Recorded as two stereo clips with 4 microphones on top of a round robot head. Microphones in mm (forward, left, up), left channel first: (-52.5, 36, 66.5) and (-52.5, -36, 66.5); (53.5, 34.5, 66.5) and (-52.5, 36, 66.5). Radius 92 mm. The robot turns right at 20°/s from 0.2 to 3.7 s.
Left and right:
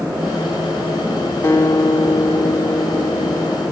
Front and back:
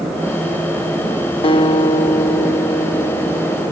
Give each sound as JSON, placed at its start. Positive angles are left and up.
{"t": 1.4, "sound": "a guitar", "azimuth_deg": 30, "distance_m": 1.3}